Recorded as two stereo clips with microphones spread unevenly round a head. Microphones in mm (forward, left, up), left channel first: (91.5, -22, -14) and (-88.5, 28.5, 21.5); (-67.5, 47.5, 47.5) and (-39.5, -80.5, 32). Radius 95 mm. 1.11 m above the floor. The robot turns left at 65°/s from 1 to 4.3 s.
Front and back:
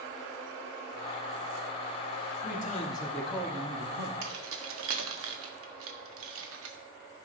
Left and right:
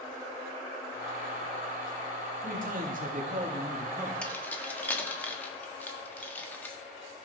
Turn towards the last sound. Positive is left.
turn(degrees=180)